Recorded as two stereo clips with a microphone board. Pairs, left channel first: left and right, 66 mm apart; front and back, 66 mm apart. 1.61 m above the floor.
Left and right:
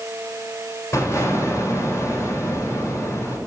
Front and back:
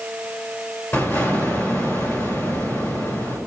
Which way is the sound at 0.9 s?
45° left.